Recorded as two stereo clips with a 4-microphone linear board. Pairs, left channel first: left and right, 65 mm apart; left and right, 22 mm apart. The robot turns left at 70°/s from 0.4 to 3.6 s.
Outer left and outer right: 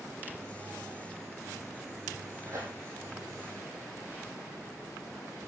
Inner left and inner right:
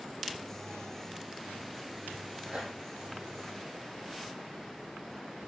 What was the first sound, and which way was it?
Tearing paper, 55° right (ahead or behind).